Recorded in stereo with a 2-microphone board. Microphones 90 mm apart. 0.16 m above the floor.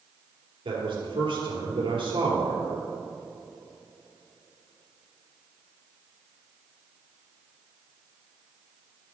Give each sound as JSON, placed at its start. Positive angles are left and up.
{"t": 0.7, "sound": "a man speaking", "side_deg": -70, "distance_m": 3.5}